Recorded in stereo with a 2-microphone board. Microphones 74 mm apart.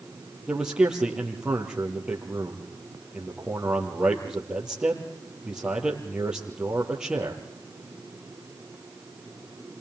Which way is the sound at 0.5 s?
10° right (ahead or behind).